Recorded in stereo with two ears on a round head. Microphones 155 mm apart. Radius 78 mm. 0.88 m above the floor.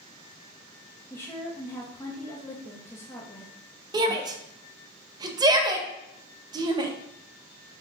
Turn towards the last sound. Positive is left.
turn(degrees=-25)  # may be behind; listen again after turning